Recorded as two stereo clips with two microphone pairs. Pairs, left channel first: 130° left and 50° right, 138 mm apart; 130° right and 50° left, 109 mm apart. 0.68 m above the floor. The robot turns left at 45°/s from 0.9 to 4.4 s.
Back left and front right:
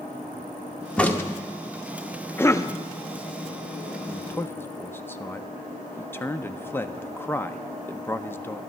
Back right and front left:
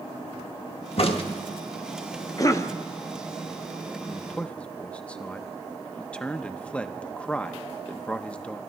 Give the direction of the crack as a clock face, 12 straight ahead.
5 o'clock.